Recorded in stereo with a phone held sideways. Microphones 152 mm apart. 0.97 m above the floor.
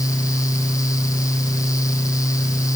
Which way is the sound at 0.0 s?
20° left (ahead or behind).